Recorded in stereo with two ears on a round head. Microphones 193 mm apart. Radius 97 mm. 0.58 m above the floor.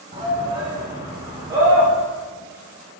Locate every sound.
0.1 s a shout: 25° right (ahead or behind), 2.5 m; by 1.9 s 20° right (ahead or behind), 1.9 m